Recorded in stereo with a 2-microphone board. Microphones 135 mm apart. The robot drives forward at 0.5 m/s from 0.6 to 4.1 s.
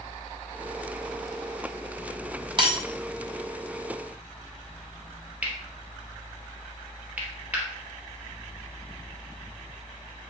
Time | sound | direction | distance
2.6 | breaking glass | 40° right (ahead or behind) | 1.4 m
5.4 | cutlery clinking | 10° right (ahead or behind) | 2.0 m